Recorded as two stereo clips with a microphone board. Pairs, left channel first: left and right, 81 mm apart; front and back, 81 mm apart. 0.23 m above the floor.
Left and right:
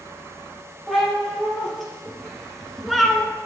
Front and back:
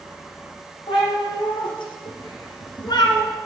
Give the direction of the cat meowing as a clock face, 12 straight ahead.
12 o'clock.